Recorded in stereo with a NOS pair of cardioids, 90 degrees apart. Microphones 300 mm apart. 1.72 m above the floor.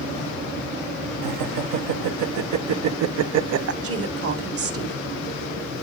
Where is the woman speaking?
50° right, 2 m.